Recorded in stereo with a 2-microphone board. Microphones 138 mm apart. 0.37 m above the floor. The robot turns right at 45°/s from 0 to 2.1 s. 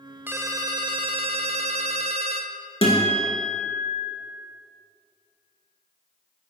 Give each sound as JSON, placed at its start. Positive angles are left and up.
{"t": 0.3, "sound": "a ringtone", "azimuth_deg": -160, "distance_m": 0.6}
{"t": 2.8, "sound": "a guitar", "side_deg": 40, "distance_m": 1.8}